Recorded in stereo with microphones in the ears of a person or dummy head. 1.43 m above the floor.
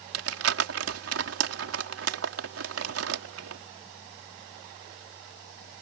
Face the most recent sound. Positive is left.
turn(degrees=-80)